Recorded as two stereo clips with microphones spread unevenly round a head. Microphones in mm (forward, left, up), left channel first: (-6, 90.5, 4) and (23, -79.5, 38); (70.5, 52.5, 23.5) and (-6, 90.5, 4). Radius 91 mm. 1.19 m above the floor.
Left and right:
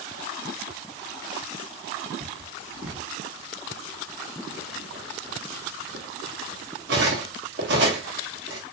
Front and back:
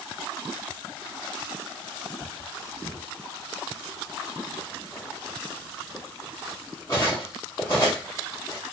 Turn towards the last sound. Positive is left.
turn(degrees=-90)